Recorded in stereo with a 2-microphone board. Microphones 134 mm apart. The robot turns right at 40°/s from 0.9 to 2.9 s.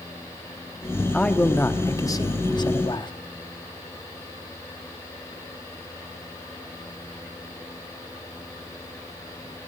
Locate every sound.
1.1 s a man speaking: 10° left, 1.0 m; by 3.1 s 80° left, 1.0 m